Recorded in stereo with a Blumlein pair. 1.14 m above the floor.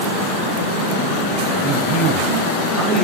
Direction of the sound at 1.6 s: 15° right.